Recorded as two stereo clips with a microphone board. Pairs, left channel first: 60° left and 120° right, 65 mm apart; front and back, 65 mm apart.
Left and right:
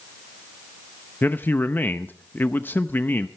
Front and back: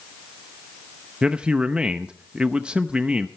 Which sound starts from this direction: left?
A man speaking, at 1.2 s.